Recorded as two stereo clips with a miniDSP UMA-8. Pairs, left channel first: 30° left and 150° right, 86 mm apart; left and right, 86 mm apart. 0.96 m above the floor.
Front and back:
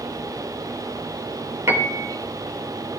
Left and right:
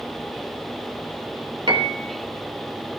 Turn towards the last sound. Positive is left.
turn(degrees=-95)